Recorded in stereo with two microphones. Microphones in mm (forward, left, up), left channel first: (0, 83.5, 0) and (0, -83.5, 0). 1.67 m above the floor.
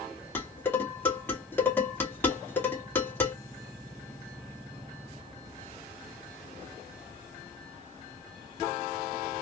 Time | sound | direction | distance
0.3 | dishes clattering | 10° left (ahead or behind) | 2.5 m